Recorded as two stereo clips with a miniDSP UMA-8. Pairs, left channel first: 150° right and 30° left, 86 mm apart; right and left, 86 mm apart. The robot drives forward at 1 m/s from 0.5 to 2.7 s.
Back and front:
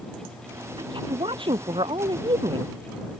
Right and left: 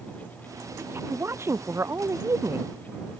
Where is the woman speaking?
30° left; by 2.7 s 35° left.